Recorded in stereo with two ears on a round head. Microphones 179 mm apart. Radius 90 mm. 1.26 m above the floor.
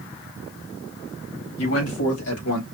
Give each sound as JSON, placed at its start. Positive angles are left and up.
{"t": 1.6, "sound": "a man speaking", "side_deg": 80, "distance_m": 2.5}